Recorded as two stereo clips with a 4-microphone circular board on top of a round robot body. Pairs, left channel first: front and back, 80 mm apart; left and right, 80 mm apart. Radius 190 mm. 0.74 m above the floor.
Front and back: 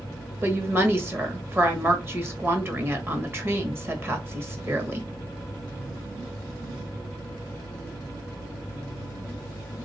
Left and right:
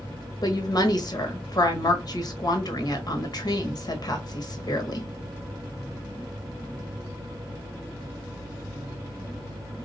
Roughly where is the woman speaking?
Behind left.